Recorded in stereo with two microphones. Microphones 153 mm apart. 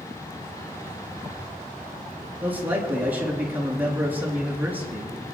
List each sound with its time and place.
2.4 s a man speaking: 10° right (ahead or behind), 4 m